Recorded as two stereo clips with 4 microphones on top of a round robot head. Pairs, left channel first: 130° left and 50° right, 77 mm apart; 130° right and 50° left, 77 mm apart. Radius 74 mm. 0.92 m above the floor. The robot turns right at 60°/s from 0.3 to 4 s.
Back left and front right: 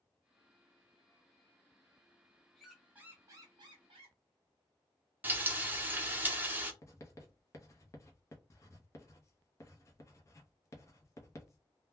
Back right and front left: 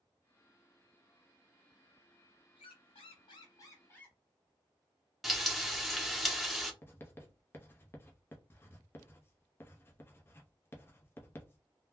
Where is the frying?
35° right, 0.8 m.